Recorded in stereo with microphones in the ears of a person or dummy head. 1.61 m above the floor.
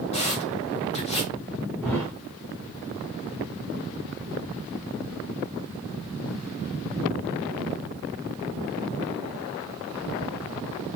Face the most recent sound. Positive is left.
turn(degrees=5)  # may be behind; listen again after turning